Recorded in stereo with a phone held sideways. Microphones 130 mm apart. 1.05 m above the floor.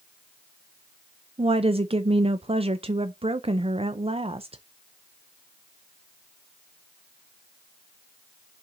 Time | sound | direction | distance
1.4 | a woman speaking | 45° right (ahead or behind) | 0.5 m